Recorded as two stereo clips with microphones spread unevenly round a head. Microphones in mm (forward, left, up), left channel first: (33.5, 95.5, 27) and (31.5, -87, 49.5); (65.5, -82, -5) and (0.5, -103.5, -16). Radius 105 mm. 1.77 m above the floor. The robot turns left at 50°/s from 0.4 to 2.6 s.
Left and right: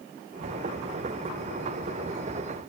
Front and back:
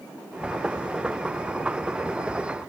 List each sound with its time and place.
Only background noise.